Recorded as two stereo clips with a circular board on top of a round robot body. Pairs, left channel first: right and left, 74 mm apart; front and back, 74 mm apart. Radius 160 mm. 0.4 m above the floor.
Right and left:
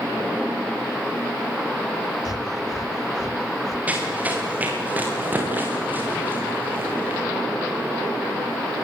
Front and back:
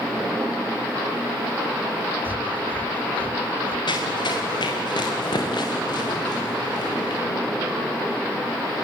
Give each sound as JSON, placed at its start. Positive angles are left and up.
{"t": 2.2, "sound": "breathing", "azimuth_deg": -115, "distance_m": 1.8}
{"t": 3.9, "sound": "running footsteps", "azimuth_deg": 20, "distance_m": 6.5}